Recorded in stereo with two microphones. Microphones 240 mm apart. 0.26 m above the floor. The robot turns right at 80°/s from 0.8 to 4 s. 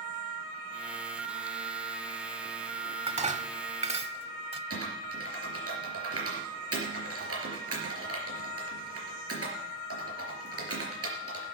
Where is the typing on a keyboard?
75° right (ahead or behind), 4 m.